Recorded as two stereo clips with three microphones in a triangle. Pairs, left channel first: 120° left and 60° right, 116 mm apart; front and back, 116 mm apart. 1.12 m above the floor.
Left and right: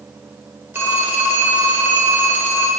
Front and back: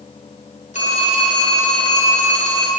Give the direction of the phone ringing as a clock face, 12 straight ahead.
12 o'clock.